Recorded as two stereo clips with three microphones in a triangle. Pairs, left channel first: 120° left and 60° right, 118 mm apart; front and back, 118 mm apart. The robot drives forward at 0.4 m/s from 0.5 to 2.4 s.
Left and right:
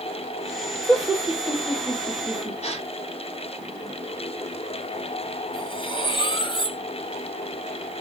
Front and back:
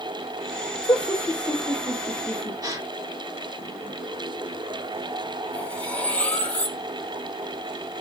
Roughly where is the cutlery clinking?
Left.